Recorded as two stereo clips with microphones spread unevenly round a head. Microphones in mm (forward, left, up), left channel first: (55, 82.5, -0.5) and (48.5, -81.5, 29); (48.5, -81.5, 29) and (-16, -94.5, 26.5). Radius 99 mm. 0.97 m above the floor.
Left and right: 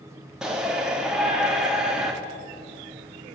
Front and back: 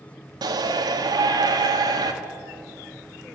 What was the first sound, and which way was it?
A shout, straight behind.